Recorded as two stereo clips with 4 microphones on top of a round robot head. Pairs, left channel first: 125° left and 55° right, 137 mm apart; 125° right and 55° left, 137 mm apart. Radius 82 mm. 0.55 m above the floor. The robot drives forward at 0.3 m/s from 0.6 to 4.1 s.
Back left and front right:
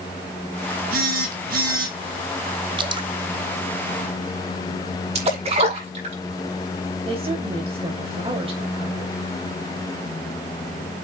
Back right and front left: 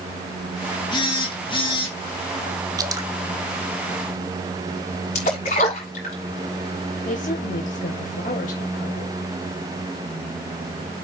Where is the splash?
100° right, 6 m.